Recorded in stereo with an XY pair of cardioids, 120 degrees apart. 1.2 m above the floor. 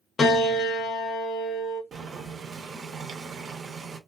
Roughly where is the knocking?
I don't hear knocking.